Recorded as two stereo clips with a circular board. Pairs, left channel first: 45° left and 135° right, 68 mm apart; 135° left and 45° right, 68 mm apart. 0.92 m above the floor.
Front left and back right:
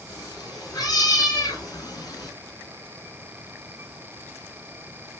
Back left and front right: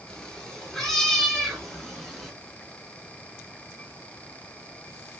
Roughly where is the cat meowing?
Ahead left.